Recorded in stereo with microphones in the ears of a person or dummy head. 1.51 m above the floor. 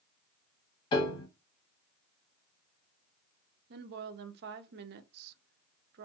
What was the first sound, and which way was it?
A piano, 25° left (ahead or behind).